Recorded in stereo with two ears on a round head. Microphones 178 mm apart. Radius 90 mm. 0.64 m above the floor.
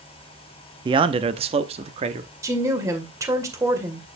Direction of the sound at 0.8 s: 25° right (ahead or behind).